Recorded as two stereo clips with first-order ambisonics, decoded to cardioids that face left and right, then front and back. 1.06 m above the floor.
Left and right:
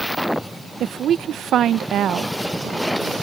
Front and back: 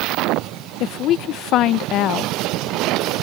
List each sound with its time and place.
0.8 s a woman speaking: 40° right